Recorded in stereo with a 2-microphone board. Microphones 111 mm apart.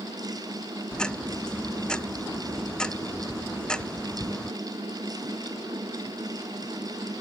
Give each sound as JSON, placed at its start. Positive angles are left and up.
{"t": 0.9, "sound": "ticking", "side_deg": 5}